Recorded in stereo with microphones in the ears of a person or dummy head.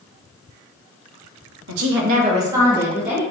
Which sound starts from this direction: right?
A woman speaking, at 1.7 s.